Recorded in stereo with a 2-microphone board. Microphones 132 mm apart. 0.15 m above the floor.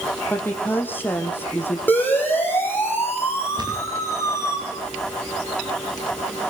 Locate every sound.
0.3 s a woman speaking: 15° left (ahead or behind), 5 m
1.9 s a siren: 15° left (ahead or behind), 9.5 m; by 4.6 s 20° left (ahead or behind), 8.5 m
3.6 s a thud: 35° right (ahead or behind), 7 m